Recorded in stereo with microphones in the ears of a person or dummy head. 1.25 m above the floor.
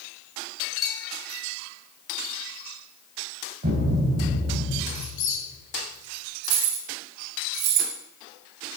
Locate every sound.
0.8 s a bell: 5° left (ahead or behind), 2.5 m
3.6 s a thud: 50° right (ahead or behind), 1.7 m
5.0 s a squeak: 40° left (ahead or behind), 2.5 m
6.4 s keys jangling: 60° right (ahead or behind), 1.8 m